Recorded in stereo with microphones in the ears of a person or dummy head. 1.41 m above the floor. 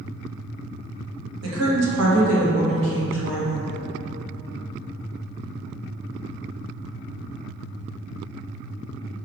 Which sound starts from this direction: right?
A woman speaking, at 1.4 s.